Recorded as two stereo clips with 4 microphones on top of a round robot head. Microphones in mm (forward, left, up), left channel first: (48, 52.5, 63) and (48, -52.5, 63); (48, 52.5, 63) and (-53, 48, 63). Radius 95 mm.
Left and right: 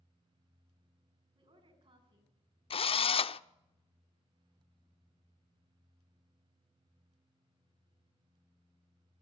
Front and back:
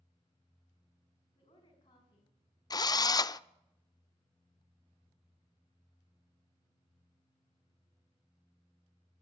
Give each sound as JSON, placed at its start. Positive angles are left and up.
{"t": 1.4, "sound": "a woman speaking", "azimuth_deg": -55, "distance_m": 6.0}
{"t": 2.7, "sound": "a drill", "azimuth_deg": 55, "distance_m": 0.6}